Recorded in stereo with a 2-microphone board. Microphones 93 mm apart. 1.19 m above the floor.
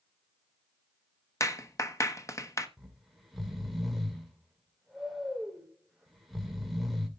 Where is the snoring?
Centre (ahead or behind), 2.5 m.